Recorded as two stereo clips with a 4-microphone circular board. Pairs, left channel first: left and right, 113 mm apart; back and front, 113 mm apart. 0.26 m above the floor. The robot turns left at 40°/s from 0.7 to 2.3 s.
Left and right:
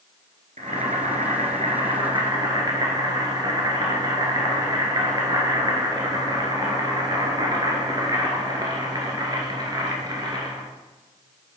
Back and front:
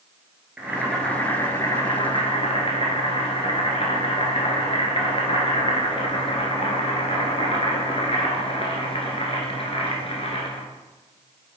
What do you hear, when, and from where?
0.6 s boiling: 80° right, 1.8 m; by 10.7 s 145° right, 1.8 m